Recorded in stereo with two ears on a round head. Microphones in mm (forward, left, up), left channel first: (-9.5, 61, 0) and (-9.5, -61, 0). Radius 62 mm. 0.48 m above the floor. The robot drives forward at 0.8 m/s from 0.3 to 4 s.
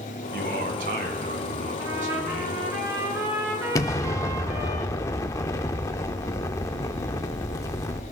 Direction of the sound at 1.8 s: 25° right (ahead or behind).